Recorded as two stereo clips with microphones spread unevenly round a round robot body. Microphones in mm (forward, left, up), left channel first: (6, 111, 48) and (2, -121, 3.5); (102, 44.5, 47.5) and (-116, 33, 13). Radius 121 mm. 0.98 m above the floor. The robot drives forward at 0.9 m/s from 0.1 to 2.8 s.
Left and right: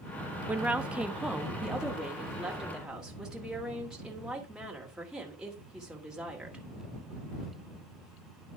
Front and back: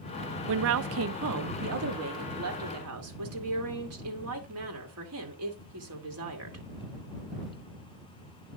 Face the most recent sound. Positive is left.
turn(degrees=180)